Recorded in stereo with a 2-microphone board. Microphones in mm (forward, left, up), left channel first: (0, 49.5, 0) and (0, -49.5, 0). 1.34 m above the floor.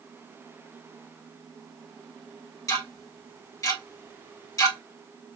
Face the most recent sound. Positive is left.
turn(degrees=35)  # may be behind; listen again after turning